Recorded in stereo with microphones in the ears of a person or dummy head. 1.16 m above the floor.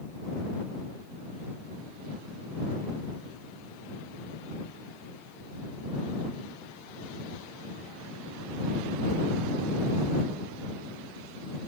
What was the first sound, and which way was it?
Only background noise.